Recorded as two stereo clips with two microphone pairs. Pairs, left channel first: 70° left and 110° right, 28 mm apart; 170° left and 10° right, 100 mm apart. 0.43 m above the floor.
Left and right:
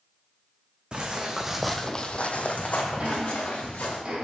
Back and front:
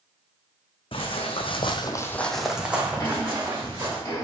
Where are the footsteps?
165° right, 1.3 m; by 4.0 s 50° left, 2.5 m.